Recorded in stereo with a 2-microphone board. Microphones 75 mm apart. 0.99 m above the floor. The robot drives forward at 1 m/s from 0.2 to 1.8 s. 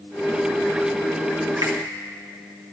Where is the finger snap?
55° right (ahead or behind), 1.1 m; by 1.8 s 50° right (ahead or behind), 1.1 m.